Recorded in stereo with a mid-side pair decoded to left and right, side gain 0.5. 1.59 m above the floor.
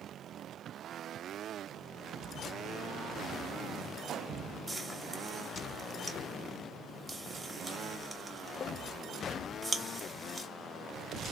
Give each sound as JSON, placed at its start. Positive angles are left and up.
{"t": 4.7, "sound": "frying", "azimuth_deg": -15, "distance_m": 0.7}